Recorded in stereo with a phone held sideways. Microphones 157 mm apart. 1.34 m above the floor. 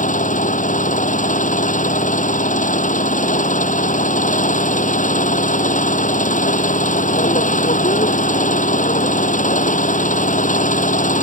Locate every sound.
0.0 s an engine running: 55° left (ahead or behind)